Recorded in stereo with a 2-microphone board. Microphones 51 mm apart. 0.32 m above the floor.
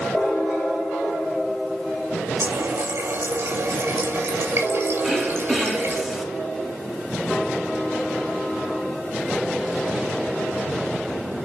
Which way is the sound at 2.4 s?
60° right (ahead or behind).